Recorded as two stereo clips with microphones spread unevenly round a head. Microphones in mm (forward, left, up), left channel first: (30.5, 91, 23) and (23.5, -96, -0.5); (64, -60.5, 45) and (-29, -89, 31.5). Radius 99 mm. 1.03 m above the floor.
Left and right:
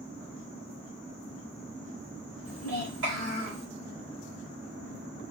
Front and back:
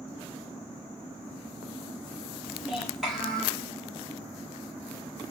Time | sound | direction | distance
2.5 | a child speaking | 85° right | 3 m